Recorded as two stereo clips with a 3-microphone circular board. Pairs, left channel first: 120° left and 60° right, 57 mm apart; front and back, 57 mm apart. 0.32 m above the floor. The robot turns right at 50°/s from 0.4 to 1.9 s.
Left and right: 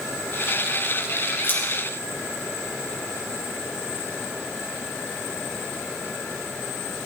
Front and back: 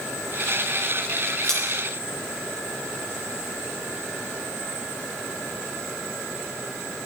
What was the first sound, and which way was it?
Scissors, 70° left.